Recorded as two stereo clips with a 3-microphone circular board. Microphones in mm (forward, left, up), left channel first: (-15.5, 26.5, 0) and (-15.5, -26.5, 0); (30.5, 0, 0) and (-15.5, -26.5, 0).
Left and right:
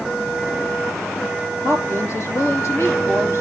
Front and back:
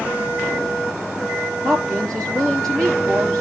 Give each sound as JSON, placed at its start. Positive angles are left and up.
{"t": 1.6, "sound": "a woman speaking", "azimuth_deg": 110, "distance_m": 3.5}